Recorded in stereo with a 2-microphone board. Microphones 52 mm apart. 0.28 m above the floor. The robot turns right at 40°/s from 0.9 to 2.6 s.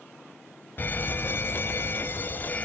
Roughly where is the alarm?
Ahead left.